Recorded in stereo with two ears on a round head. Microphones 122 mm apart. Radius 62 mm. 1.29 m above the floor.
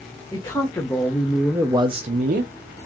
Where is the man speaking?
30° left (ahead or behind), 1.2 m; by 2.5 s 75° right (ahead or behind), 0.7 m.